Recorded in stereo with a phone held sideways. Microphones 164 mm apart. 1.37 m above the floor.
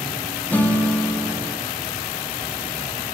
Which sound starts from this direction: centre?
A guitar, at 0.5 s.